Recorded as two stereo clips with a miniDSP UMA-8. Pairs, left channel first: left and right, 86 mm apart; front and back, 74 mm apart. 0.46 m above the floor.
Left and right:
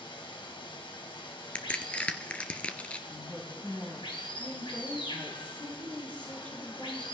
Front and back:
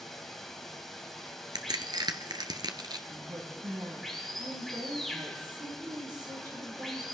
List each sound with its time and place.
0.0 s running water: 85° left, 2.0 m
1.6 s a crack: 165° left, 1.2 m
3.1 s a woman speaking: 160° left, 3.5 m